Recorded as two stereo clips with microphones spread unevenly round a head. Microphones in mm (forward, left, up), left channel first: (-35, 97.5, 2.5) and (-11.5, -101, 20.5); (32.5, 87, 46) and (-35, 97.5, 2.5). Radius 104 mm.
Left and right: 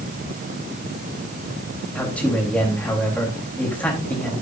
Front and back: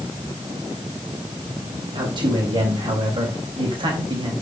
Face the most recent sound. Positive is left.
turn(degrees=180)